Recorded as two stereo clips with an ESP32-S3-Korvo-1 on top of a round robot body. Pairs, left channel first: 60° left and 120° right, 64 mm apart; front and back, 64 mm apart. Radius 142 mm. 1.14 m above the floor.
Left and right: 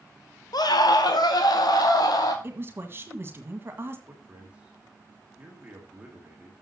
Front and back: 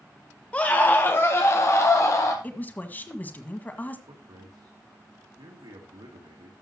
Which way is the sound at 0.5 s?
70° left.